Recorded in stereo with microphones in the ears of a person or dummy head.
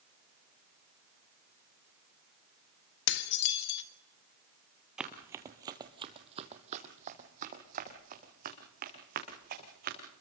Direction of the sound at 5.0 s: 5° right (ahead or behind).